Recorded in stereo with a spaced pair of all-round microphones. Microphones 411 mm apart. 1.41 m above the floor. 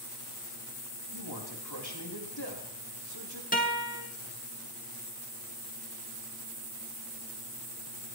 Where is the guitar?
20° left (ahead or behind), 2.5 m.